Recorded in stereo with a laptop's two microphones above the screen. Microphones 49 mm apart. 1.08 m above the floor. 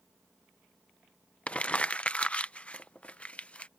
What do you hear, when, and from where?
1.5 s crumpling: 25° left (ahead or behind)